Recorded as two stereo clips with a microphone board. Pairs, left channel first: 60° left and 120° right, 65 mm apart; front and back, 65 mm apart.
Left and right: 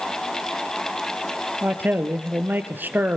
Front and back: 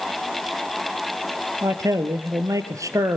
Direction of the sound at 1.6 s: 175° right.